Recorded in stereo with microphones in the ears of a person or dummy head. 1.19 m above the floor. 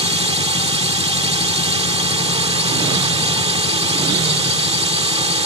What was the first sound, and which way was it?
A drone, 30° right (ahead or behind).